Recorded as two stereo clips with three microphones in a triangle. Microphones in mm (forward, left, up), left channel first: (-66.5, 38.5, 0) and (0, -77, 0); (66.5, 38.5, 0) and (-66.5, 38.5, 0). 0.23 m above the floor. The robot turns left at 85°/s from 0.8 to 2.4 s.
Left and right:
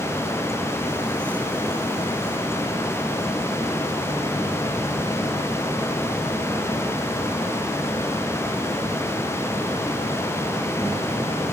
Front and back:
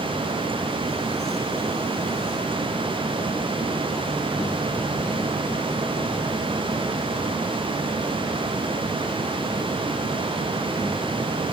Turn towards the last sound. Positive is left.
No sound to turn to.